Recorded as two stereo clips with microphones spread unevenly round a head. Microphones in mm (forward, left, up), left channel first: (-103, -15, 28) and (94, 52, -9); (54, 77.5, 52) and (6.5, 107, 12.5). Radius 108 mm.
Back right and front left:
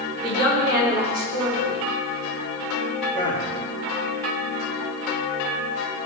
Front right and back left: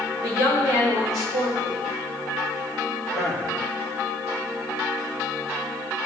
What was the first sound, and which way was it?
A woman speaking, 30° right.